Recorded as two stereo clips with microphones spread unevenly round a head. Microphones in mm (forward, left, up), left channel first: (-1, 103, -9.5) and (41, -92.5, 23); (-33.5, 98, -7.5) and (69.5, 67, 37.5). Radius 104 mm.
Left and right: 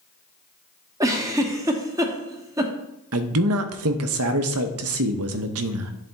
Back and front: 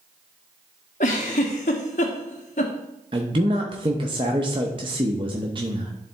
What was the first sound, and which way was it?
A giggle, 150° right.